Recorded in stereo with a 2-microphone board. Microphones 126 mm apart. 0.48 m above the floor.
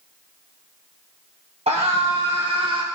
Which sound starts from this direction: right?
A scream, at 1.7 s.